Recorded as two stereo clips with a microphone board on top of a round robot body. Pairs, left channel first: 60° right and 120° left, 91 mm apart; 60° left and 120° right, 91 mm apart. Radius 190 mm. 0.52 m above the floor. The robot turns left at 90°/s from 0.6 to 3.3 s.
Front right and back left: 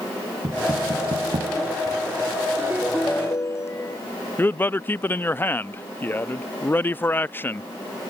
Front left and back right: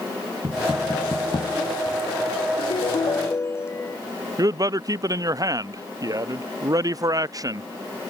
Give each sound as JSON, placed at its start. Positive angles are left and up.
{"t": 0.4, "sound": "knocking", "azimuth_deg": 175}
{"t": 2.6, "sound": "a ringtone", "azimuth_deg": 65}
{"t": 4.4, "sound": "a man speaking", "azimuth_deg": -115}